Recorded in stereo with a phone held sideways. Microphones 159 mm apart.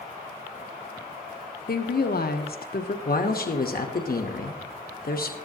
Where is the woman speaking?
75° left (ahead or behind), 0.8 m.